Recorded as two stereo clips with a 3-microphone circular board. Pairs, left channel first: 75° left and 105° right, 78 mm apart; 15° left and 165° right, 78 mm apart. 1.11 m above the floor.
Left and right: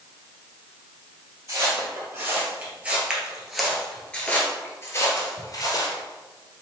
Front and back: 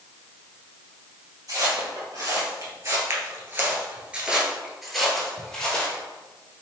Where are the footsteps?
145° right, 1.8 m; by 6.0 s 85° left, 1.7 m.